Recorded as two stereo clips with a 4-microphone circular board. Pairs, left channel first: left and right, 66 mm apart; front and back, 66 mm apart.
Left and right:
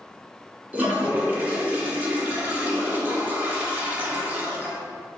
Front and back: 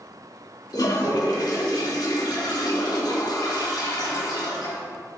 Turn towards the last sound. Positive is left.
turn(degrees=-25)